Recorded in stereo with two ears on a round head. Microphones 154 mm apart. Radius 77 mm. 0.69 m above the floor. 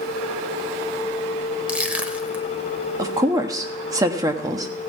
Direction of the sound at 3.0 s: 20° right (ahead or behind).